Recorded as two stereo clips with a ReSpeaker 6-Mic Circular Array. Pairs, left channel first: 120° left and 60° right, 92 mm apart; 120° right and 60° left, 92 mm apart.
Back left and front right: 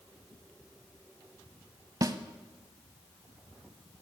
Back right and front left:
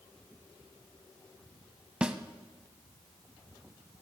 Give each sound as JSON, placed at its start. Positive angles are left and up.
{"t": 2.0, "sound": "a snare drum", "azimuth_deg": -20, "distance_m": 0.5}